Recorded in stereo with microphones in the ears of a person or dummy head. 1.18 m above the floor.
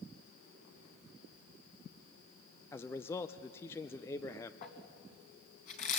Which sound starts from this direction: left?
Crumpling, at 4.6 s.